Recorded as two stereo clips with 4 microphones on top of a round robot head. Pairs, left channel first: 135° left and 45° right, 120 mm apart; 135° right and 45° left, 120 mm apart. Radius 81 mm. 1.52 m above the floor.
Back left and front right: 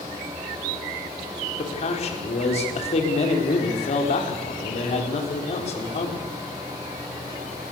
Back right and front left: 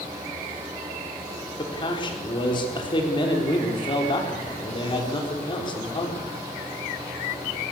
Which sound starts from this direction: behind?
A man speaking, at 1.6 s.